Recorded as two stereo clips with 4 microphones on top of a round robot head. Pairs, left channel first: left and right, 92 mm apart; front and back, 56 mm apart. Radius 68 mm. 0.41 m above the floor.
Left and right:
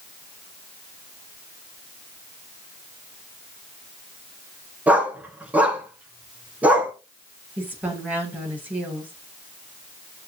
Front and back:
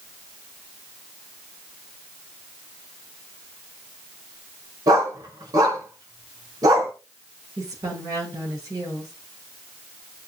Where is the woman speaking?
160° right, 9 m.